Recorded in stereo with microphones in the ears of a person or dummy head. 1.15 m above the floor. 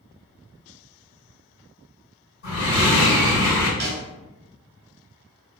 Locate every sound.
2.4 s breathing: 70° left (ahead or behind), 1.9 m
3.8 s a snare drum: 50° right (ahead or behind), 0.8 m